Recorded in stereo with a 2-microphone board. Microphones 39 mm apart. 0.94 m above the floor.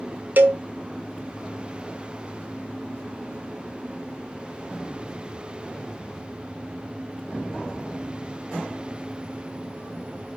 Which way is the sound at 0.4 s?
50° right (ahead or behind).